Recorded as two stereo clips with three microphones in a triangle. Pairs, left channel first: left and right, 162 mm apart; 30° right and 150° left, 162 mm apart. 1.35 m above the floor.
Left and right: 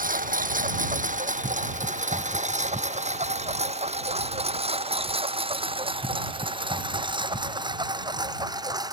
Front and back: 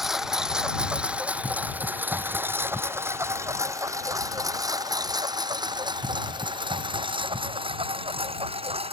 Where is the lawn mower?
120° right; by 8.9 s 155° right.